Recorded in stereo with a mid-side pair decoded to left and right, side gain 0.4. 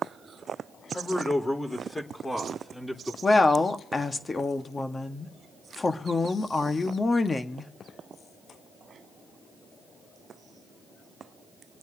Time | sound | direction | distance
0.9 | a man speaking | 30° left | 4.5 m
3.2 | a woman speaking | 30° left | 1.7 m